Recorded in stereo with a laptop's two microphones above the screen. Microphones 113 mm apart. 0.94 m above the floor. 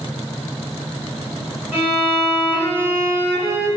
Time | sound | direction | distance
1.7 | a violin | 15° right (ahead or behind) | 0.8 m